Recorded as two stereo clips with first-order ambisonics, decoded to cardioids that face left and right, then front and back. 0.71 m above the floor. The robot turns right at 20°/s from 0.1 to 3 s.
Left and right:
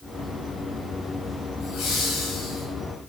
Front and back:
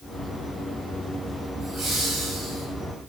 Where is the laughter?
115° left, 5 m; by 2.6 s 135° left, 5 m.